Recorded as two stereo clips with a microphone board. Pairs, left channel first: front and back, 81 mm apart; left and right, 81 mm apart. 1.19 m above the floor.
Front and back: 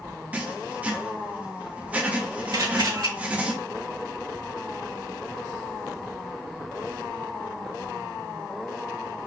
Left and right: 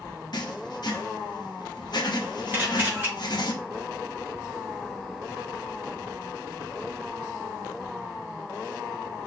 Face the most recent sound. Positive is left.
turn(degrees=-155)